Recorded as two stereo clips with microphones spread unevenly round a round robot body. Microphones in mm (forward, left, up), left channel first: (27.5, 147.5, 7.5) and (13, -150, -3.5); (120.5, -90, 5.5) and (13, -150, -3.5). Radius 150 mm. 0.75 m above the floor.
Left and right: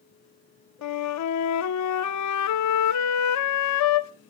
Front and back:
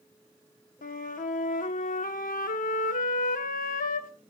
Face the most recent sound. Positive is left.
turn(degrees=55)